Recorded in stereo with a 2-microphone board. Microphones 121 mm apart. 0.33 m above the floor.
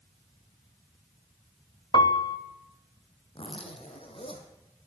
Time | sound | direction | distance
1.9 | a piano | 40° left (ahead or behind) | 1.1 m
3.4 | a zipper | 50° left (ahead or behind) | 3 m